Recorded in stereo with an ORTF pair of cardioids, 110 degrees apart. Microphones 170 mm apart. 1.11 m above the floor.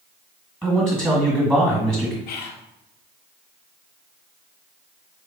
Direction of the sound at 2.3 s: 70° left.